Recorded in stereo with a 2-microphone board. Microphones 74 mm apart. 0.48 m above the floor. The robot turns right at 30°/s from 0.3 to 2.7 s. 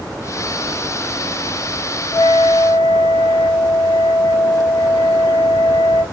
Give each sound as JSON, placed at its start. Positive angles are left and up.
{"t": 2.1, "sound": "a flute", "side_deg": 55, "distance_m": 0.5}